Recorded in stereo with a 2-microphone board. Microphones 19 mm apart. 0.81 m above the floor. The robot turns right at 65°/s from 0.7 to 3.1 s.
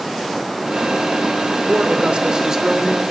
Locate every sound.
1.7 s a man speaking: 85° right, 3 m; by 3.0 s straight ahead, 3 m